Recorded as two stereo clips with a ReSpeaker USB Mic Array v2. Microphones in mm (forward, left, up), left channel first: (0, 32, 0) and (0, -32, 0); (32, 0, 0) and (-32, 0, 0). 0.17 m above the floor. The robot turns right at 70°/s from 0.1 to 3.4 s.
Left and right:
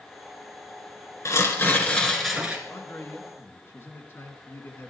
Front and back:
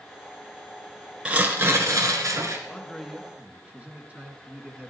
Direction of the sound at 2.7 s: 70° left.